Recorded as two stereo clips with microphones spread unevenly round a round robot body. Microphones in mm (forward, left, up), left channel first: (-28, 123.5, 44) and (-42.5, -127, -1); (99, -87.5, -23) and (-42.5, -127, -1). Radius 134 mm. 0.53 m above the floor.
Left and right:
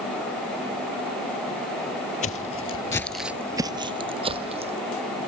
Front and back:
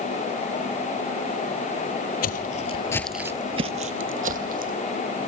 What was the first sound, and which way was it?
Footsteps, 35° left.